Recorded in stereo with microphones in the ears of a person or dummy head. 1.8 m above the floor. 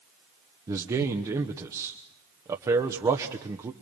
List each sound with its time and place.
0.7 s a man speaking: 20° right (ahead or behind), 1.2 m